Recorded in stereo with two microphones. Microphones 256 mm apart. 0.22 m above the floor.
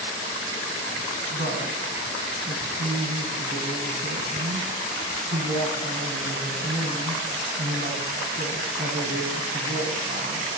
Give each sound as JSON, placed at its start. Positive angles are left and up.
{"t": 1.3, "sound": "a woman speaking", "side_deg": -40, "distance_m": 1.3}